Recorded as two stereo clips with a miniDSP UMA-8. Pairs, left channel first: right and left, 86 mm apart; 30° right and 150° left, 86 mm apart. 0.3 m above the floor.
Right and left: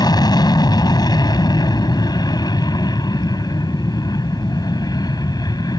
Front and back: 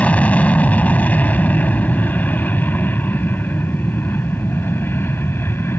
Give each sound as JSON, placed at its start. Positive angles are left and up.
{"t": 0.0, "sound": "an aircraft", "azimuth_deg": -100}